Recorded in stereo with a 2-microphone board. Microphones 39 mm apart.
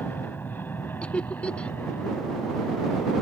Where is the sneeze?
No sneeze in this recording.